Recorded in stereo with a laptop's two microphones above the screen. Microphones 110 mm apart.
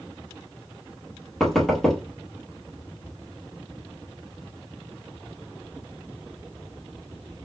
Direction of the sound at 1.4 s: 5° left (ahead or behind).